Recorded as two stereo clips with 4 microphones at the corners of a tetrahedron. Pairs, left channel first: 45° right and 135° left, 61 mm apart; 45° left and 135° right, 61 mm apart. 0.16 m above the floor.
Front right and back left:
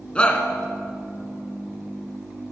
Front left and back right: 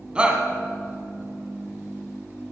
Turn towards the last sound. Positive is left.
turn(degrees=-90)